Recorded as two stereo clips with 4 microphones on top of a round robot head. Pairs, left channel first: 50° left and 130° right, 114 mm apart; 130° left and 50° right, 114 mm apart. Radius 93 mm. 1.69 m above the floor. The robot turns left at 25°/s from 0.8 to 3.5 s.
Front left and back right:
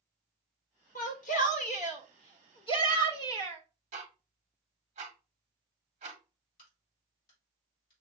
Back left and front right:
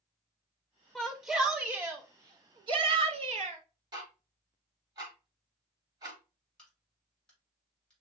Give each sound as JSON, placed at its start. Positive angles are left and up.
{"t": 0.9, "sound": "a shout", "azimuth_deg": 45, "distance_m": 1.0}
{"t": 3.9, "sound": "ticking", "azimuth_deg": -105, "distance_m": 1.0}
{"t": 6.6, "sound": "a crack", "azimuth_deg": 50, "distance_m": 2.5}